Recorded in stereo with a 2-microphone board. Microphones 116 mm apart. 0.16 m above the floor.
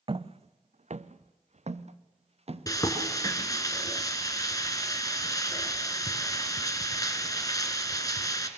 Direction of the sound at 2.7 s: 30° left (ahead or behind).